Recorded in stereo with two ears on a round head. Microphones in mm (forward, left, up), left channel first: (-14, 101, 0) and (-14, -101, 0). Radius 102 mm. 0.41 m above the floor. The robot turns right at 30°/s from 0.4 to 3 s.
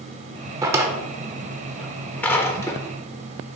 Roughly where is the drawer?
Centre.